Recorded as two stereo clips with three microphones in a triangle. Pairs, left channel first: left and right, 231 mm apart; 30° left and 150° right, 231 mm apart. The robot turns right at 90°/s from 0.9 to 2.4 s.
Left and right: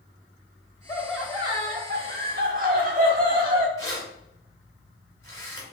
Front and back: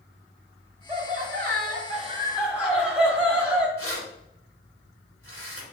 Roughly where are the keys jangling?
Ahead.